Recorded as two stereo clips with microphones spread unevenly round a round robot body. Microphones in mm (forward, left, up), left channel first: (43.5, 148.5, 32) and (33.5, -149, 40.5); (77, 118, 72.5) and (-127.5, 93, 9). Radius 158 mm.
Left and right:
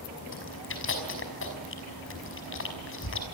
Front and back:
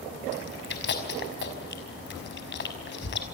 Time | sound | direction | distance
0.3 | chewing | 40° left | 5.5 m